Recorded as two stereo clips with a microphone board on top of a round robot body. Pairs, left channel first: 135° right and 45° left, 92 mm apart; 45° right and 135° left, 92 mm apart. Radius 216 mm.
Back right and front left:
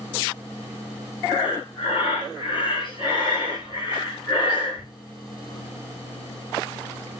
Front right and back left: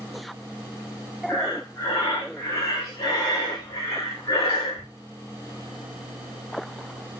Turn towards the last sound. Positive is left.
turn(degrees=-100)